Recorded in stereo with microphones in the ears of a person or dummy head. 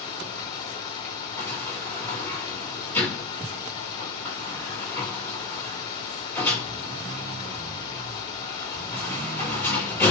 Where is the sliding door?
15° left (ahead or behind), 5.5 m.